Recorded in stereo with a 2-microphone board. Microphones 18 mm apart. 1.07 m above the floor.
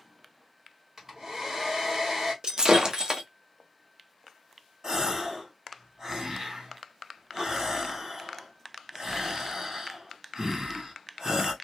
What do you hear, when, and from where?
1.0 s a hair dryer: 30° right (ahead or behind), 1.6 m
2.4 s breaking glass: 50° right (ahead or behind), 0.6 m
4.8 s a gasp: 35° right (ahead or behind), 1.4 m